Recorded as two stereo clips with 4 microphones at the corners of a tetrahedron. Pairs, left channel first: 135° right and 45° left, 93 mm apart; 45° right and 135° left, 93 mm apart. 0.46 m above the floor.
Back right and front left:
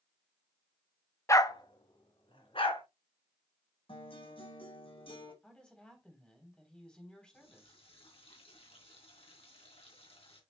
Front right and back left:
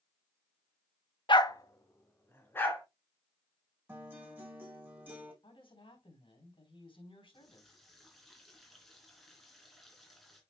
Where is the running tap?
135° right, 3 m.